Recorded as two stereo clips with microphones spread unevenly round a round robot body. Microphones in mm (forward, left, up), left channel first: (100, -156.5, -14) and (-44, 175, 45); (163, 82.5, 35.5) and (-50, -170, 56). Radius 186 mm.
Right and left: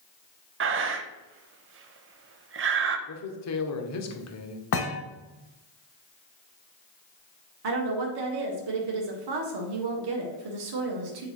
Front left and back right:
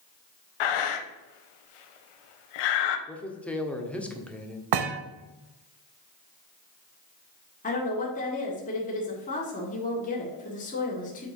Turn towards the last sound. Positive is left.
turn(degrees=110)